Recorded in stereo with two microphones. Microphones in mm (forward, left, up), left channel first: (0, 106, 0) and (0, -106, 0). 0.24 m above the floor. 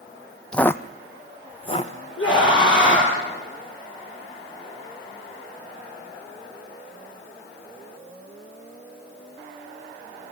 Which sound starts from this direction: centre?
Footsteps, at 0.5 s.